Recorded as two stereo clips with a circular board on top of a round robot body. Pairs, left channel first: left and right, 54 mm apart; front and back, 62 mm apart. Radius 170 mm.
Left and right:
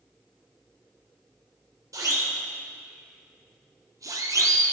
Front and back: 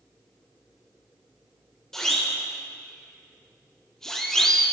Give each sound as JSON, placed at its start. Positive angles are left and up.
{"t": 1.9, "sound": "a siren", "azimuth_deg": -80, "distance_m": 3.0}